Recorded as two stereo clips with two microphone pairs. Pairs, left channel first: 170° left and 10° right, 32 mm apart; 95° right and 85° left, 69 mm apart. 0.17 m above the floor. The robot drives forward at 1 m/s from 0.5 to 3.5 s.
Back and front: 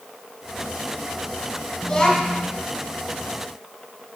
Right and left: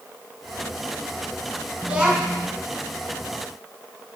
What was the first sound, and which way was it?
A child speaking, 120° left.